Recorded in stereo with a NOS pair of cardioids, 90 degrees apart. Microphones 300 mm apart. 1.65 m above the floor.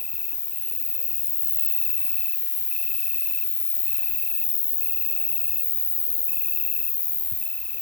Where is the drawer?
No drawer in this recording.